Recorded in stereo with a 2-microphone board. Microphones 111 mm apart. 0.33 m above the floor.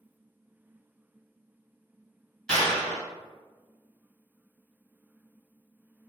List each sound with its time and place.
2.5 s a clap: 5° left (ahead or behind), 1.9 m